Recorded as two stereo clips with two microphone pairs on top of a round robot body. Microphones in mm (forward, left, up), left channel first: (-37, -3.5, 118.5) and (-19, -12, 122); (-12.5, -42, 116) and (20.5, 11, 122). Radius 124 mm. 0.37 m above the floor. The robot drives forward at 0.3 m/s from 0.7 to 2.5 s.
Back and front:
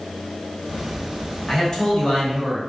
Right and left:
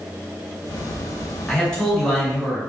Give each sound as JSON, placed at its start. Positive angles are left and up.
{"t": 1.5, "sound": "a man speaking", "azimuth_deg": 170, "distance_m": 1.6}